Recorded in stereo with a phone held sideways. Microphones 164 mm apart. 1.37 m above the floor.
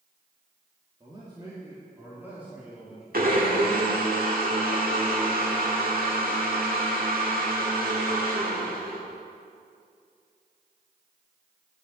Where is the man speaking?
30° right (ahead or behind), 2 m; by 3.0 s 5° right (ahead or behind), 3 m.